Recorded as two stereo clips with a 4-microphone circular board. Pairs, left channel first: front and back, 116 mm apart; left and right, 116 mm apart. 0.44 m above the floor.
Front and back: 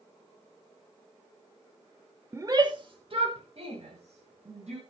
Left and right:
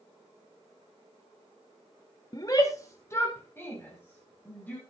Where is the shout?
125° left, 0.9 m; by 4.8 s 165° left, 3 m.